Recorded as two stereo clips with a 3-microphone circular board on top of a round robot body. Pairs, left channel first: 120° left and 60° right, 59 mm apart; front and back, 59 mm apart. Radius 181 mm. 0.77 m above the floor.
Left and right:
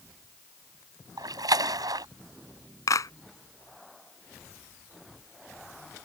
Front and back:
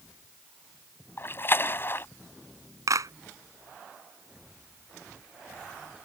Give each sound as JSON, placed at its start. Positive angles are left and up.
{"t": 1.2, "sound": "a splash", "azimuth_deg": -55}
{"t": 2.9, "sound": "a clap", "azimuth_deg": 150}